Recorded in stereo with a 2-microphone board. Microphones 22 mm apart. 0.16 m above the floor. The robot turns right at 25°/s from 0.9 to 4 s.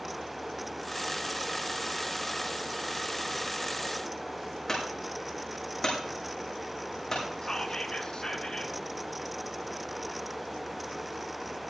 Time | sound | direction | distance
4.7 | a clunk | 20° left (ahead or behind) | 5.5 m
7.4 | whispering | 35° left (ahead or behind) | 2 m